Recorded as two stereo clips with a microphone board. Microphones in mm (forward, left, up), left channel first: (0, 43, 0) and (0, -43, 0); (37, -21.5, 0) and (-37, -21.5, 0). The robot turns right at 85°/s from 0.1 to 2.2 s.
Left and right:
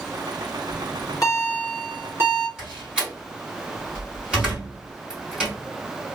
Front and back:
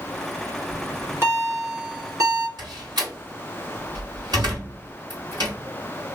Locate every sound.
0.7 s a bell: 85° left, 2 m; by 2.5 s 150° right, 2 m
2.6 s a door slam: 170° right, 3 m